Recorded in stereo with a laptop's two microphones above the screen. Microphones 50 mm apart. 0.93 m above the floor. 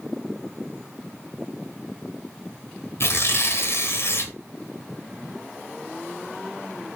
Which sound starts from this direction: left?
Tearing paper, at 3.0 s.